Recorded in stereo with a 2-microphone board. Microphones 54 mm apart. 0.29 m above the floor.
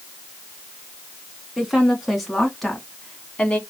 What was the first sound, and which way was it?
A woman speaking, 5° right (ahead or behind).